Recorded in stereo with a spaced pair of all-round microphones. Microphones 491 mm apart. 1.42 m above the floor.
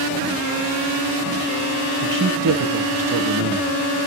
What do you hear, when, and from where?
2.0 s a man speaking: 40° right (ahead or behind), 0.7 m